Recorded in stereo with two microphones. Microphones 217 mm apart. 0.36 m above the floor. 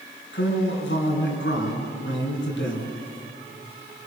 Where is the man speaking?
60° left (ahead or behind), 4.5 m.